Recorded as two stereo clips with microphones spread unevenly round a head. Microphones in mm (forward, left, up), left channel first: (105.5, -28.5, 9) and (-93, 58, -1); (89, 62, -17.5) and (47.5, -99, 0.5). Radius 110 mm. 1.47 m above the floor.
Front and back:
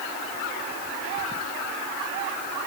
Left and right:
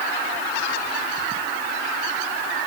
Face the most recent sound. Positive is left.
No sound to turn to.